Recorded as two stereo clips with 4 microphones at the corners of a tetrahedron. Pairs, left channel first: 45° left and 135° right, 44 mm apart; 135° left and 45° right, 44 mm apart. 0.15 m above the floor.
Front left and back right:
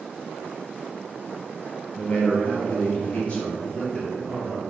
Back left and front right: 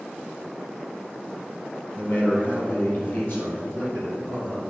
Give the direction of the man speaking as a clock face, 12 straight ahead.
9 o'clock.